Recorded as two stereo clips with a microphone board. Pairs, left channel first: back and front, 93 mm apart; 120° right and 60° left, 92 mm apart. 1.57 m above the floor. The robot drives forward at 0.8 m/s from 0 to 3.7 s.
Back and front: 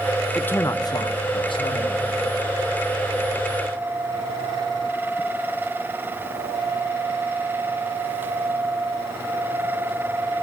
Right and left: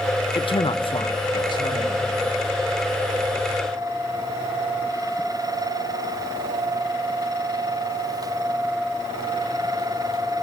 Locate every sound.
0.3 s a man speaking: 100° right, 0.5 m; by 2.5 s 165° right, 1.9 m